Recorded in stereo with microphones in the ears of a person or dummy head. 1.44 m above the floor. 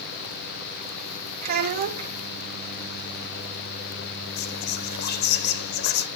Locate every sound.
1.4 s a child speaking: 45° right (ahead or behind), 1.0 m
4.4 s whispering: 65° left (ahead or behind), 0.7 m